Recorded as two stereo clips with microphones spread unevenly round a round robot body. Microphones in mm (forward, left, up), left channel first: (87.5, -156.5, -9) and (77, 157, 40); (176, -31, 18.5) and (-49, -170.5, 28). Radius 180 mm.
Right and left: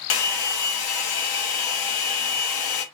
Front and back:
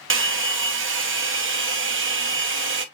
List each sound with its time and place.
0.1 s a hair dryer: 100° right, 1.0 m